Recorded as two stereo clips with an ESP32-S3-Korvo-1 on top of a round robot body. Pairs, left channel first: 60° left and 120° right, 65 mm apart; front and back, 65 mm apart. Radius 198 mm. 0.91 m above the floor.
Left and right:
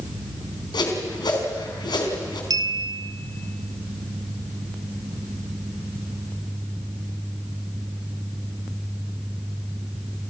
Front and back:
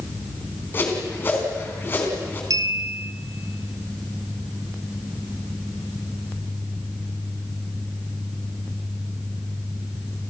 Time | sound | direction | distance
0.7 | a whoosh | 60° left | 4 m
2.5 | a clink | 145° right | 1.0 m